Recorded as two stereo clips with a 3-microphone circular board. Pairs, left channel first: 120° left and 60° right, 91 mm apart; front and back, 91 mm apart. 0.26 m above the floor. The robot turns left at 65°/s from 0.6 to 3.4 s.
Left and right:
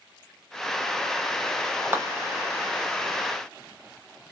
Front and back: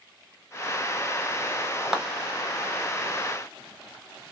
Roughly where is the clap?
Right.